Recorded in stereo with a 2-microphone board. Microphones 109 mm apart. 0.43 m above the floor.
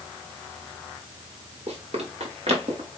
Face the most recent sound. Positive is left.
turn(degrees=-60)  # may be behind; listen again after turning